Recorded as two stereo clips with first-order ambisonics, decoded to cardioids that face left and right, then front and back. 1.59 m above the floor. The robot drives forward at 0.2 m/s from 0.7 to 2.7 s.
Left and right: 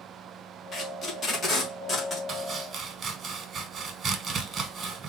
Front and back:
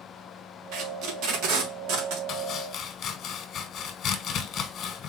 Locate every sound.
0.7 s tape being pulled: 155° left, 1.0 m; by 2.2 s 160° left, 1.3 m
2.3 s chopping: 35° right, 0.8 m; by 5.1 s 40° right, 0.7 m